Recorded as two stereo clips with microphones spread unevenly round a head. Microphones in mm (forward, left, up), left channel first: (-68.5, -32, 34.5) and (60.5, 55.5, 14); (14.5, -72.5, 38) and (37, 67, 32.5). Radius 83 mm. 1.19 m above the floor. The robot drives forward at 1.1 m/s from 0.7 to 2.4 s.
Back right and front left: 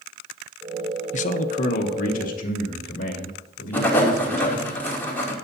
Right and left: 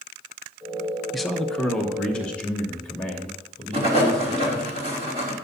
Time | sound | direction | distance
1.1 | a man speaking | 170° left | 0.7 m
3.7 | writing | 135° left | 2.5 m